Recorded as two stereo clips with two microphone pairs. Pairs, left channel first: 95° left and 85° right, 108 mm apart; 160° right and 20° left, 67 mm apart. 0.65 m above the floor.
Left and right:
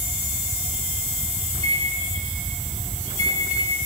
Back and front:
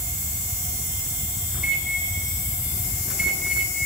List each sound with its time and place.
1.5 s a microwave: 60° right, 5.5 m